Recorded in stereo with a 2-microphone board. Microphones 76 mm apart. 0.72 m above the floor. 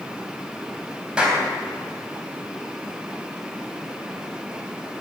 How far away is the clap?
About 4 m.